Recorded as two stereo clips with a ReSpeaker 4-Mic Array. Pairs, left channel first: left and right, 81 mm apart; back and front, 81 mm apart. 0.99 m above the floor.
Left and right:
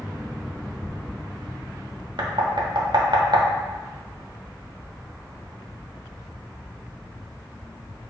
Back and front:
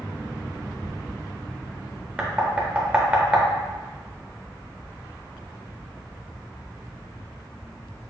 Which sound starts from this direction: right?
Knocking, at 2.2 s.